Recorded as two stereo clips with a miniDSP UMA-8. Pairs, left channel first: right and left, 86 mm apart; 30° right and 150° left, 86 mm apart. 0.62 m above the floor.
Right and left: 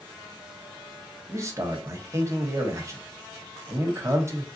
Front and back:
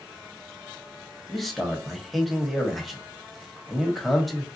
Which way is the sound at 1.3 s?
60° left.